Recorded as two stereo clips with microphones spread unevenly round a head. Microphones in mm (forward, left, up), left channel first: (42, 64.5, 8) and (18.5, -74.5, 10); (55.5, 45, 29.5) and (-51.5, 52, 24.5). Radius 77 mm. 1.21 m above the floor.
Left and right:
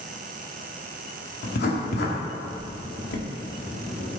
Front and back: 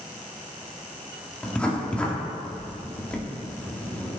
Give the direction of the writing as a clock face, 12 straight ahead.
9 o'clock.